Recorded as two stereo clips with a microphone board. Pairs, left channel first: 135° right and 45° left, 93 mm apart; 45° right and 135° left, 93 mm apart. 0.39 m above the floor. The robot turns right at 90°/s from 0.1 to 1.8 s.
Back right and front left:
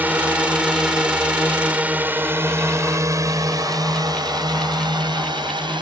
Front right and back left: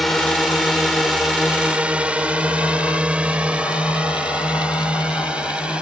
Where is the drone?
45° left; by 5.8 s 60° left.